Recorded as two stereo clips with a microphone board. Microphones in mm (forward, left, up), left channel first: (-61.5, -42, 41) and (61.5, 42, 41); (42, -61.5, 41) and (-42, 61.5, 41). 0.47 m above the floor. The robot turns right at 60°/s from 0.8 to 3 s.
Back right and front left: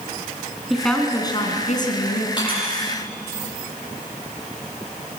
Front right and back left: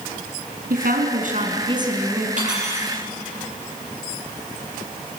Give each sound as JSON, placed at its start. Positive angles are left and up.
{"t": 0.7, "sound": "a woman speaking", "azimuth_deg": 125, "distance_m": 4.5}
{"t": 2.4, "sound": "cutlery clinking", "azimuth_deg": 155, "distance_m": 9.0}